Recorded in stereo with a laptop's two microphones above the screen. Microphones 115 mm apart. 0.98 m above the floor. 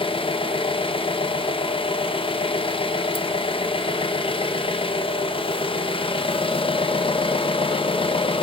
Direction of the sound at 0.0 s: 50° left (ahead or behind).